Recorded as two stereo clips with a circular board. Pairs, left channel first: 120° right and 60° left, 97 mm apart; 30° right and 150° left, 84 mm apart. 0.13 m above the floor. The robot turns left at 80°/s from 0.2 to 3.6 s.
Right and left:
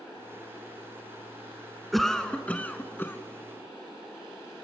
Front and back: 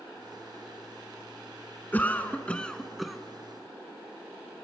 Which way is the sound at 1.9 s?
30° right.